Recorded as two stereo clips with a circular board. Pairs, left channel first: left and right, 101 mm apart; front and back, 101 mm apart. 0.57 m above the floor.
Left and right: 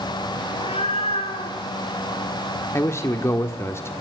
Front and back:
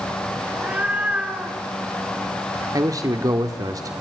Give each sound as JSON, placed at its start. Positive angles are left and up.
{"t": 0.5, "sound": "a cat meowing", "azimuth_deg": 105, "distance_m": 4.0}
{"t": 2.7, "sound": "a man speaking", "azimuth_deg": 145, "distance_m": 1.8}